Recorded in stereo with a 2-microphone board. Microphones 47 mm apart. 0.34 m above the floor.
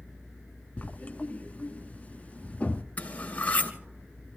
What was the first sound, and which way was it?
Writing, 30° left (ahead or behind).